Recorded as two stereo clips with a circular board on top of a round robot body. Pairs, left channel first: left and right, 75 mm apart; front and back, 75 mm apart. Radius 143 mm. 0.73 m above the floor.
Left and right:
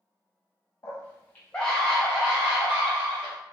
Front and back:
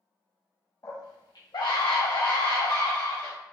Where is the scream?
40° left, 0.9 m; by 3.4 s 30° right, 1.3 m.